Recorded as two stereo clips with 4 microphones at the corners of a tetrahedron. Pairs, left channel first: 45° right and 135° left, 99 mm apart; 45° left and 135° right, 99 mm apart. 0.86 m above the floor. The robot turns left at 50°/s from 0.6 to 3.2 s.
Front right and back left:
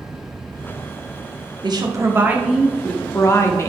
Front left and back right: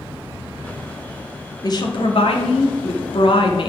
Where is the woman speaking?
95° left, 1.3 m; by 3.7 s 15° left, 1.3 m.